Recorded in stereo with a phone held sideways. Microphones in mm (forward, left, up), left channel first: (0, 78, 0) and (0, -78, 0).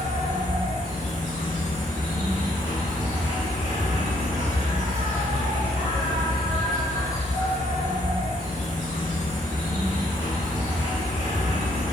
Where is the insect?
50° left (ahead or behind), 1.9 m.